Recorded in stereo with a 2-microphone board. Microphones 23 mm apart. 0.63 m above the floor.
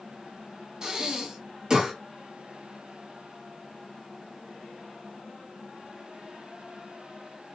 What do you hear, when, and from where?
0.8 s breathing: 30° right (ahead or behind), 1.3 m